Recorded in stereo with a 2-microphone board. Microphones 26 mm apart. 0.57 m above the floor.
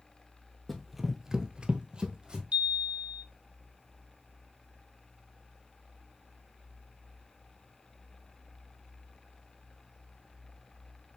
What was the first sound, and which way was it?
Running footsteps, 5° left (ahead or behind).